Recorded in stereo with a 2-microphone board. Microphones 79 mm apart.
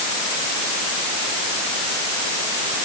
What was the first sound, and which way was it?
Only background noise.